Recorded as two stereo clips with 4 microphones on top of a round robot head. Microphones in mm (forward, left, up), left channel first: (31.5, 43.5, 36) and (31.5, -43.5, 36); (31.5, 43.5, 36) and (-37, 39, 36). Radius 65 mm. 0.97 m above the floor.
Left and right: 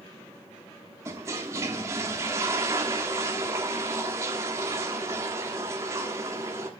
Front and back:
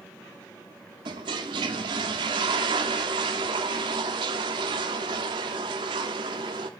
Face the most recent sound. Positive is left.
turn(degrees=-155)